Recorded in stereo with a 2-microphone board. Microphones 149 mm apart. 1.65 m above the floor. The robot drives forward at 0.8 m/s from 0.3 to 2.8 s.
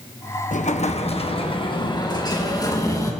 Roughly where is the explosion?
Left.